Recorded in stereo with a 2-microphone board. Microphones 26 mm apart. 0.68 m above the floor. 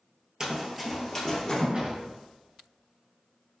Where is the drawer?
45° right (ahead or behind), 0.5 m.